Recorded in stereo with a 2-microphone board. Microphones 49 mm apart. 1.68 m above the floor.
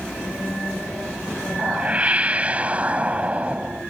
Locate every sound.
1.6 s a whoosh: 30° right (ahead or behind)